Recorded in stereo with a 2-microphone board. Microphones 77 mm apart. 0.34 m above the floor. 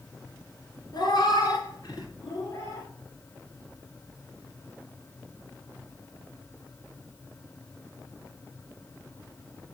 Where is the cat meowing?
65° left (ahead or behind), 2.0 m; by 2.9 s 40° left (ahead or behind), 2.5 m.